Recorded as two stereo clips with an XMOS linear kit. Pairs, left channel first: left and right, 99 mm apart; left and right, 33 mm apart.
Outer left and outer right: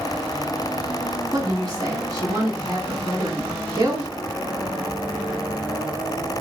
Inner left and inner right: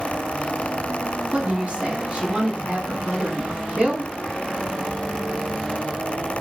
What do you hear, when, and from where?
1.3 s a woman speaking: 45° right (ahead or behind), 2.0 m